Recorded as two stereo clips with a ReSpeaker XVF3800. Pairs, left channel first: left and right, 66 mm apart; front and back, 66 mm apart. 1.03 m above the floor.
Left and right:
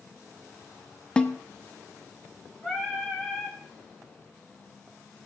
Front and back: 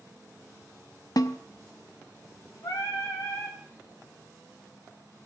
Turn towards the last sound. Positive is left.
turn(degrees=-5)